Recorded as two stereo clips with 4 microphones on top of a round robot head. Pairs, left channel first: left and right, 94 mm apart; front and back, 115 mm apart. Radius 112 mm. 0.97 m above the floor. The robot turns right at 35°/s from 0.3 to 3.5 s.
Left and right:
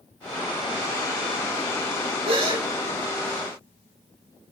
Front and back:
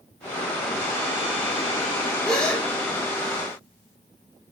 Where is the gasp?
90° right, 3.5 m; by 2.6 s 75° right, 3.5 m.